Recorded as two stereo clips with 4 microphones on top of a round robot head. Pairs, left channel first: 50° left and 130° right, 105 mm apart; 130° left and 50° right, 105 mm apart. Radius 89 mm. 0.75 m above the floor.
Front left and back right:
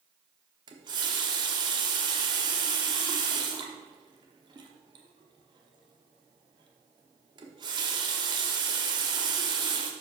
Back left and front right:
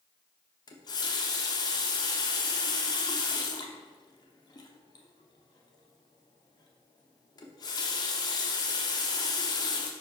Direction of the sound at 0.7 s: Straight behind.